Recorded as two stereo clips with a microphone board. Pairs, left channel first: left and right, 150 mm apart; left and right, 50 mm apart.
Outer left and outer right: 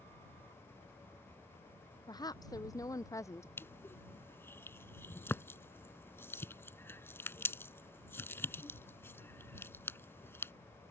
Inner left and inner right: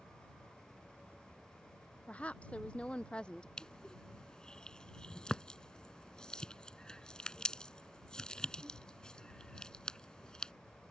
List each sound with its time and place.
2.1 s a woman speaking: 25° left (ahead or behind); by 3.5 s 20° left (ahead or behind)
3.6 s crushing: 15° left (ahead or behind)